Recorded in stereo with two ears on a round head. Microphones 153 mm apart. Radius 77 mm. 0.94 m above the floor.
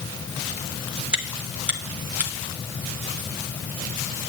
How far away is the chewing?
About 1.3 m.